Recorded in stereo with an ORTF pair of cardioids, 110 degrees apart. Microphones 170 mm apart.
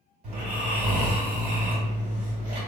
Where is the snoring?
40° right, 1.7 m.